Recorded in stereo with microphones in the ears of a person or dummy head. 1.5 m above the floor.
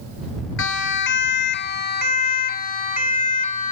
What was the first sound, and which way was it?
A siren, 60° left (ahead or behind).